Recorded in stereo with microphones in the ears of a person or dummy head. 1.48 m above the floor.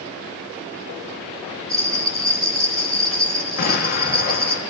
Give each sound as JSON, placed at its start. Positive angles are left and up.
{"t": 1.7, "sound": "a bell", "side_deg": -20, "distance_m": 7.0}
{"t": 3.6, "sound": "an explosion", "side_deg": 45, "distance_m": 1.6}